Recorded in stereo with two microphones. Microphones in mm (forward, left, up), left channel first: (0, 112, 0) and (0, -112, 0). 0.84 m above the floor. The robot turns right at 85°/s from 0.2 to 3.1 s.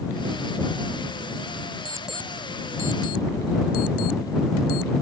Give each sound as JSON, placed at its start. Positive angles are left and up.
{"t": 1.9, "sound": "an alarm clock", "side_deg": -25}